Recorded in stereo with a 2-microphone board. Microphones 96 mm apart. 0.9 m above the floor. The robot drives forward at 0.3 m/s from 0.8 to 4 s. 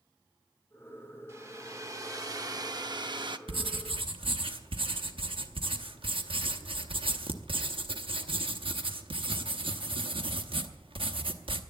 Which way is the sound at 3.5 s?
75° right (ahead or behind).